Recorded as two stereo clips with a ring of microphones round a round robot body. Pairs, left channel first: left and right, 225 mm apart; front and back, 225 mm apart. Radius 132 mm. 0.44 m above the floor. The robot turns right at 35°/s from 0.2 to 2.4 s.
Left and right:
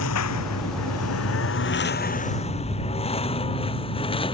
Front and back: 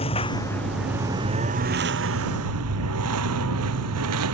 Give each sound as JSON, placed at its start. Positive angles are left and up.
{"t": 0.0, "sound": "a lawn mower", "azimuth_deg": 70}